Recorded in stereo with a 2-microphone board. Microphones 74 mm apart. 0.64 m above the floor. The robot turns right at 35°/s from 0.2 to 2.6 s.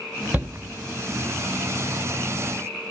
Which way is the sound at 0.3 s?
25° right (ahead or behind).